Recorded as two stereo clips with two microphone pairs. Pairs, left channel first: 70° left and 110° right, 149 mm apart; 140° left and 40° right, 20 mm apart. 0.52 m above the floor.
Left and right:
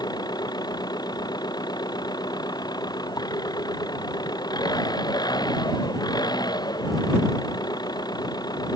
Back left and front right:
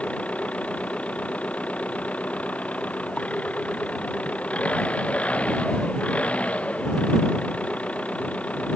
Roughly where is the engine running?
Behind left.